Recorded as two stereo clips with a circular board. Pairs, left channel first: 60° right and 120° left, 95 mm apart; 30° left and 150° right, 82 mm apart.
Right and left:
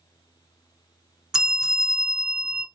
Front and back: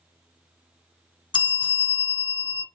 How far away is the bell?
About 0.8 m.